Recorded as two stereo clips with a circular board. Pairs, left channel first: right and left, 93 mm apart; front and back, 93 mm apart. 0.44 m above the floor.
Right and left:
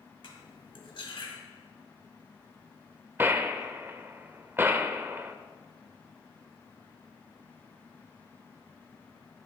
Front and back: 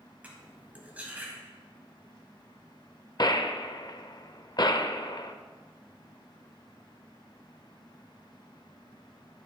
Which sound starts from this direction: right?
Cutlery clinking, at 0.2 s.